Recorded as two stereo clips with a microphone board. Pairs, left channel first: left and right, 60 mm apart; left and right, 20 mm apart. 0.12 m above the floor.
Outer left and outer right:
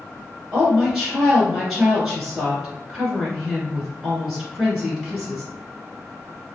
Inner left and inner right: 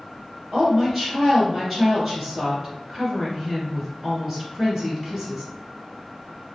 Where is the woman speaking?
Centre (ahead or behind), 1.6 m.